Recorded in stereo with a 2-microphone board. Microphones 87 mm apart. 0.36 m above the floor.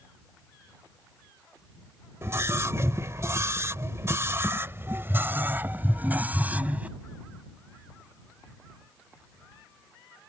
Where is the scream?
35° right (ahead or behind); by 6.9 s 20° right (ahead or behind).